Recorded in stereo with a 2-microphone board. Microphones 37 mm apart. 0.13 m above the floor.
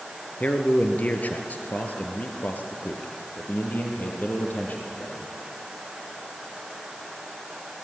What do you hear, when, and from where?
0.4 s a man speaking: 40° left (ahead or behind), 2 m; by 5.3 s 50° left (ahead or behind), 5 m